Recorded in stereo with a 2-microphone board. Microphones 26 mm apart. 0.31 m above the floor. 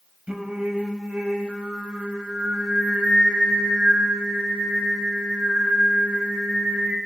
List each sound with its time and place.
0.3 s singing: 45° right (ahead or behind), 0.8 m